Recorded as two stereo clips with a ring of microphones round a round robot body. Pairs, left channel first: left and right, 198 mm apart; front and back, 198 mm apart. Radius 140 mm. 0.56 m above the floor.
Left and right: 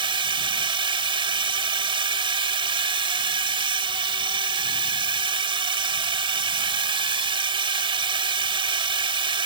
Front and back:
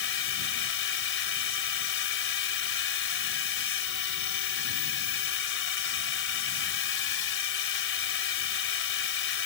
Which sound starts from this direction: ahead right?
A drone, at 0.0 s.